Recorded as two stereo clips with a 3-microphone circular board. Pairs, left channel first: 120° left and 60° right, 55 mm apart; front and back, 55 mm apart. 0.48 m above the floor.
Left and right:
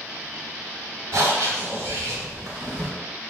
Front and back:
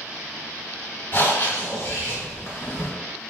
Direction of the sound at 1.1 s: 40° right.